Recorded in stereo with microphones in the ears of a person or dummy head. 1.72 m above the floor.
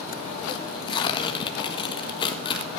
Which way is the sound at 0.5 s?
25° left (ahead or behind).